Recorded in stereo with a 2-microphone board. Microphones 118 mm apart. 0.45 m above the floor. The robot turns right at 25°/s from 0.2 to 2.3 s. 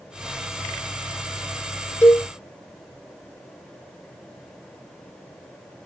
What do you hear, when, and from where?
2.0 s a cowbell: 20° left (ahead or behind), 1.4 m; by 2.2 s 15° left (ahead or behind), 1.4 m